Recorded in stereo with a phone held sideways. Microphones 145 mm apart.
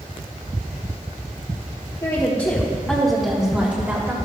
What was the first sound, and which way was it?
A woman speaking, 35° left (ahead or behind).